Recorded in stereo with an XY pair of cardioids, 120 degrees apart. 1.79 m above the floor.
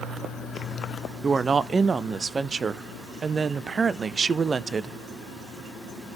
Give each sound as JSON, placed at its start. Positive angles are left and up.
{"t": 1.2, "sound": "a woman speaking", "azimuth_deg": -30, "distance_m": 0.7}